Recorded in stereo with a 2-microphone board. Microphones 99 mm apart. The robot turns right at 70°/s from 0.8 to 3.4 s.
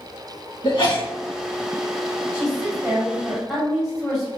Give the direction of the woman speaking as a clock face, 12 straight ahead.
3 o'clock.